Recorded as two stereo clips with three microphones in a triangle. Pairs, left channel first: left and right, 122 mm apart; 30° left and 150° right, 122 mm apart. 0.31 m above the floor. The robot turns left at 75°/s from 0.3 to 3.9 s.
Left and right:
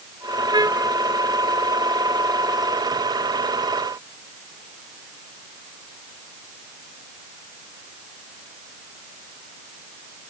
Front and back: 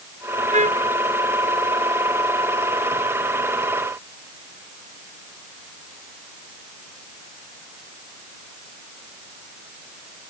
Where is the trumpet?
140° right; by 0.9 s 175° right.